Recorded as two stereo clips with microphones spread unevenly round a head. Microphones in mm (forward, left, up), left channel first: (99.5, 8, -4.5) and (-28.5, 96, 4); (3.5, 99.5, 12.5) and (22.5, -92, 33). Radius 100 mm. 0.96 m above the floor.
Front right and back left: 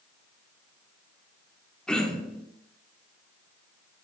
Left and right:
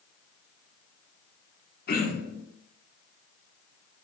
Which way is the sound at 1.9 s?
50° left.